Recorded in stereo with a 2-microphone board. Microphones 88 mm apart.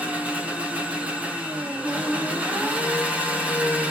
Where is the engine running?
15° right (ahead or behind), 1.2 m.